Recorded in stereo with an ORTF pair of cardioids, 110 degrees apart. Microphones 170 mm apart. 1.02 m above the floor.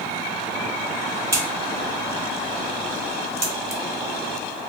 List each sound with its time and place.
1.3 s a crack: 15° right, 0.7 m